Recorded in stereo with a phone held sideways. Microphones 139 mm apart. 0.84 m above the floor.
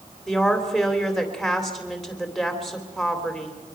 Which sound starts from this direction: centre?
A woman speaking, at 0.3 s.